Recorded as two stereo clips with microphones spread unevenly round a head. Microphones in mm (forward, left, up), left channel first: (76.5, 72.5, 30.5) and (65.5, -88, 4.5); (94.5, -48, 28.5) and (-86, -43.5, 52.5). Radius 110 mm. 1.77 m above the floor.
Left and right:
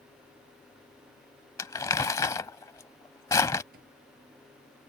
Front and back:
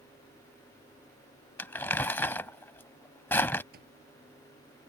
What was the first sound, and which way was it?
Crumpling, 85° left.